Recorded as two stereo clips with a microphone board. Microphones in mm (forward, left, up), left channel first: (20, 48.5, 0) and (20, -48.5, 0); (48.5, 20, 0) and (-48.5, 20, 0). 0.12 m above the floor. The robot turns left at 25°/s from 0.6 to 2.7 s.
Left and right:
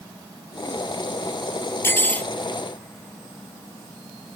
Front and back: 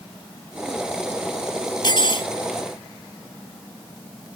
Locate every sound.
1.8 s cutlery clinking: 30° left; by 2.3 s 15° left